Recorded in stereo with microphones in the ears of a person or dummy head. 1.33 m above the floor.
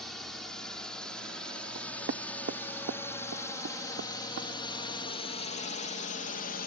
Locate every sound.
0.0 s a drone: centre (ahead or behind); by 6.7 s 50° left (ahead or behind)
1.8 s knocking: 70° right (ahead or behind)